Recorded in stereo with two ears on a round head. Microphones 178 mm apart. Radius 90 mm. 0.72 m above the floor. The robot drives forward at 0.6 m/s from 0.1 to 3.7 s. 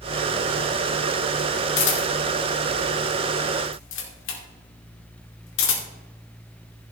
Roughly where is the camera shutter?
Left.